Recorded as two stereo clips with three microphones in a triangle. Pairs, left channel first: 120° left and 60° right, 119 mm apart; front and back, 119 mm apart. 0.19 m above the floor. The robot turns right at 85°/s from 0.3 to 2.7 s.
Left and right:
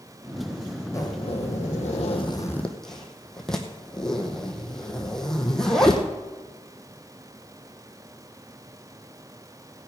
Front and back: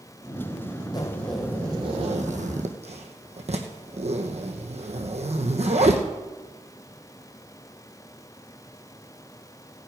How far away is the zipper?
About 1.8 m.